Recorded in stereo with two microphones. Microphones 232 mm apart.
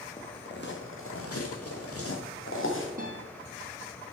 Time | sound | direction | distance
0.2 | footsteps | 35° left (ahead or behind) | 2 m
3.0 | a guitar | 35° right (ahead or behind) | 3.5 m